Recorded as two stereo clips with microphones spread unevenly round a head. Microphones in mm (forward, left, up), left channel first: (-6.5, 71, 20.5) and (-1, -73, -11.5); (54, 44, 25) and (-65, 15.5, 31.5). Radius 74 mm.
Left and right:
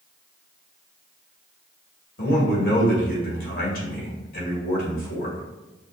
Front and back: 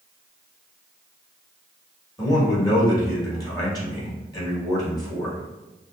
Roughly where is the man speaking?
Left.